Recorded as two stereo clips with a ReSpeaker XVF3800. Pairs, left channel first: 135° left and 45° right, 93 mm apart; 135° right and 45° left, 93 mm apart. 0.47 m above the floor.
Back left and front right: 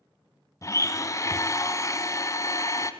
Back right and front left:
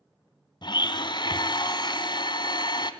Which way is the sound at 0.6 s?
170° right.